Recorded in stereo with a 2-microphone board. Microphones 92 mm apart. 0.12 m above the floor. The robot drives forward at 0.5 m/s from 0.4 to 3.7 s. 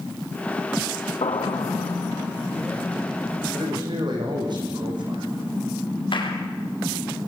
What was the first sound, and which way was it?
An explosion, 75° left (ahead or behind).